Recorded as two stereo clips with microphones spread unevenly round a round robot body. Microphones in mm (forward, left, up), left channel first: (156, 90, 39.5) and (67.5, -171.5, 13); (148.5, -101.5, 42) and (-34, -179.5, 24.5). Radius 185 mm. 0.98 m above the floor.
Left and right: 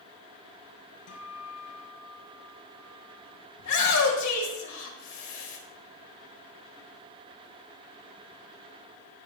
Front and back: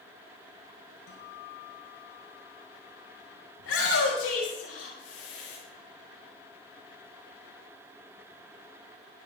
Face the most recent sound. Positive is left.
turn(degrees=50)